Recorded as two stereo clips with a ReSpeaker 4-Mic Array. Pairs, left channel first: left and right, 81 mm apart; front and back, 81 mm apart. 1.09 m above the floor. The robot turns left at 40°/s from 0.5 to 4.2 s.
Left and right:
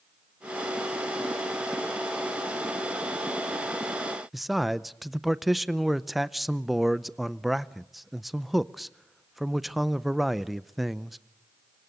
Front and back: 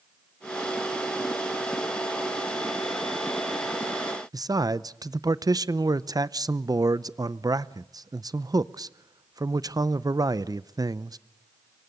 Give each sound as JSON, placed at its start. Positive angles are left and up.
{"t": 4.3, "sound": "a man speaking", "azimuth_deg": 180, "distance_m": 0.6}